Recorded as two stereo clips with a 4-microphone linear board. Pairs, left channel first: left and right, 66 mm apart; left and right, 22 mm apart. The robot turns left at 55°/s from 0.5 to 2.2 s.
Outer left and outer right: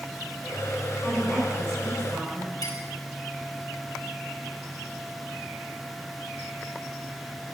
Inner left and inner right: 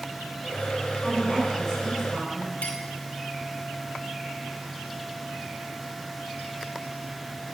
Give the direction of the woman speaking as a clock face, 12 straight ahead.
11 o'clock.